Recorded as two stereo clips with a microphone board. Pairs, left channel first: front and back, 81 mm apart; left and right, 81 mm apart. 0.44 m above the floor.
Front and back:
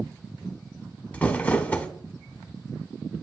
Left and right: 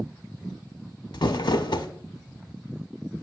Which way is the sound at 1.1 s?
70° left.